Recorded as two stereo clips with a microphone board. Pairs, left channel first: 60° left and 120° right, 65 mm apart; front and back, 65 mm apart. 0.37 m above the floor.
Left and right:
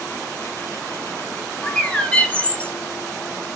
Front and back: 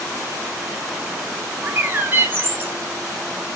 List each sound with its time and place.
1.6 s a bird: 130° left, 0.8 m